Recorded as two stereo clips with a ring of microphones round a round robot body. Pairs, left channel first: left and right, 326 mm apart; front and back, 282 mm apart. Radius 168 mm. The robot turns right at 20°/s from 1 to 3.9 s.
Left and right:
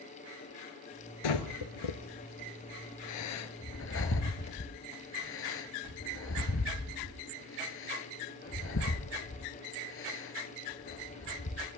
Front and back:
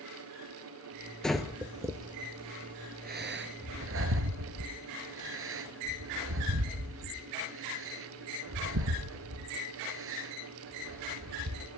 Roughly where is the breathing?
Left.